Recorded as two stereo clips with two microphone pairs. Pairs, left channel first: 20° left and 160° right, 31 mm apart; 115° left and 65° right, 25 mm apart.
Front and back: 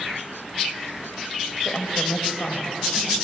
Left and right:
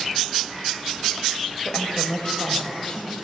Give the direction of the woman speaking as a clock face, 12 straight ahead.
10 o'clock.